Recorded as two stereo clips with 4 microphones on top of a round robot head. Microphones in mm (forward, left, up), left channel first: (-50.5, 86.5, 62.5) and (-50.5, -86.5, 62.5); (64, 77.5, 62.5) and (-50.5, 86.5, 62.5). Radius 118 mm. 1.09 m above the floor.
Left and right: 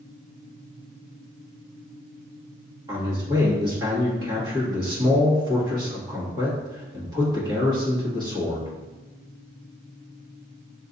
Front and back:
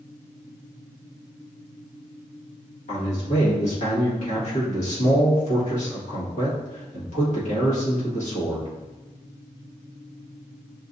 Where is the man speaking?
20° right, 1.7 m.